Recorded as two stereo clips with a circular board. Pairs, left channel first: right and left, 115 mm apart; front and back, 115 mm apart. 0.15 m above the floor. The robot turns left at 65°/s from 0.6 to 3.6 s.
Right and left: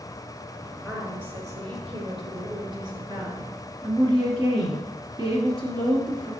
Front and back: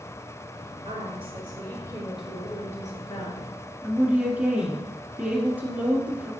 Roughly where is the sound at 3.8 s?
Left.